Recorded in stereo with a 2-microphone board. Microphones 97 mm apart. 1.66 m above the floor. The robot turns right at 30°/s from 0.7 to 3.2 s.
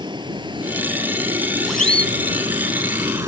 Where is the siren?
Centre (ahead or behind); by 2.1 s 15° left (ahead or behind).